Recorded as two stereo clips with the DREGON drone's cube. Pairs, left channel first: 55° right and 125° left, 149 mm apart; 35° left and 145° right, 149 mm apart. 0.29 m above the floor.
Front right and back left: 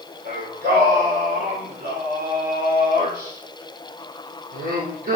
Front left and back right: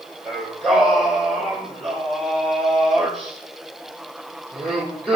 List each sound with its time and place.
0.2 s singing: 120° left, 3 m